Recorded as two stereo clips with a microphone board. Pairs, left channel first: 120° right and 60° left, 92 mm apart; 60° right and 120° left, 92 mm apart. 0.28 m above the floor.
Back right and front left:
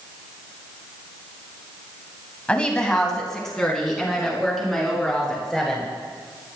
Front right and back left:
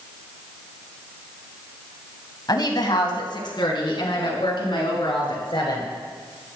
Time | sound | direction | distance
2.5 | a woman speaking | 45° right | 2 m